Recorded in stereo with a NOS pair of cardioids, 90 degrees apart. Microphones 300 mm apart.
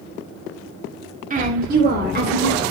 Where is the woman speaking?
25° right, 2.5 m; by 2.6 s 35° right, 4 m.